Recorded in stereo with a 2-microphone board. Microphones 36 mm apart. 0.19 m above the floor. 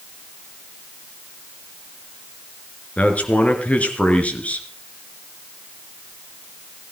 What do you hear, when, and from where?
3.0 s a man speaking: 35° left (ahead or behind), 3.5 m